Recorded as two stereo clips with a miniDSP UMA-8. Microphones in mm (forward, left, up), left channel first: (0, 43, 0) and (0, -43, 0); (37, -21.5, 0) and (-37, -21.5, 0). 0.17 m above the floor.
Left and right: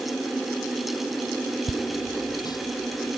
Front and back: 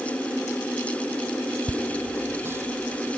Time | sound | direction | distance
1.7 | laughter | 125° left | ?